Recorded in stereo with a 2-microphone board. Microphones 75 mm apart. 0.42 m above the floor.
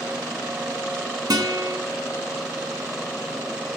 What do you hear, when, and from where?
1.3 s a guitar: 60° right (ahead or behind), 1.0 m